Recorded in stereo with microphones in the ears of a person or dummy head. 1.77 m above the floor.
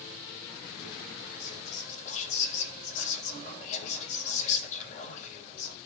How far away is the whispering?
About 1.7 m.